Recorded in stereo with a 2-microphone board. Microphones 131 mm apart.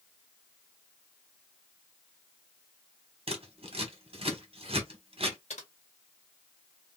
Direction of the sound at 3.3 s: 50° right (ahead or behind).